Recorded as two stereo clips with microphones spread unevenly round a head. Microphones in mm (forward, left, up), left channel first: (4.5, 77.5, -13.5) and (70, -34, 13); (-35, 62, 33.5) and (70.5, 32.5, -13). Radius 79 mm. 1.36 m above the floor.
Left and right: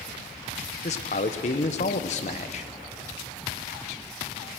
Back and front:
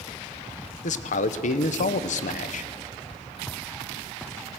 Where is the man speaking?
150° left, 0.9 m.